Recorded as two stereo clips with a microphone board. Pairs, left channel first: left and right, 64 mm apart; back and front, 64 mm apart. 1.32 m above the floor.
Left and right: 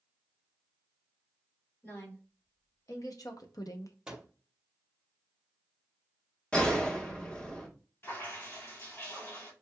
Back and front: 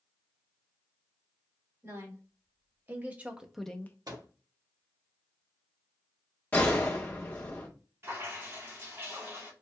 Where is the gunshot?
150° left, 1.0 m.